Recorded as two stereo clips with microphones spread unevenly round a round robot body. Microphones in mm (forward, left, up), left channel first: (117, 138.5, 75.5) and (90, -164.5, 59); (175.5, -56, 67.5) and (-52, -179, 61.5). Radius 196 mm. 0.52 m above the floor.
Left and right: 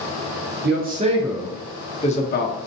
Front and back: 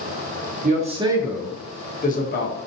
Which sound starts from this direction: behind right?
A man speaking, at 0.6 s.